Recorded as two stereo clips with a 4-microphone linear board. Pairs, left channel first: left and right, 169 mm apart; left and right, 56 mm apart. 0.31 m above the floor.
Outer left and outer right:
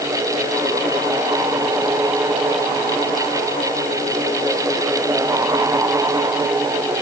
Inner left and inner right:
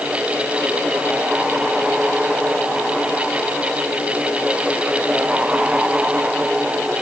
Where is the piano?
I don't hear a piano.